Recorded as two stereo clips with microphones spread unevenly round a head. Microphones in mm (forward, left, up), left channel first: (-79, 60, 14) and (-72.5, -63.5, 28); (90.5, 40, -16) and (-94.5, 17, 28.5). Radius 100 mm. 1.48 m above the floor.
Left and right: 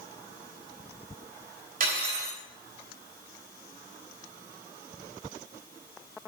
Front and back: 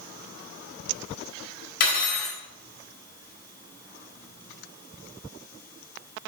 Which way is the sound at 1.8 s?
45° right.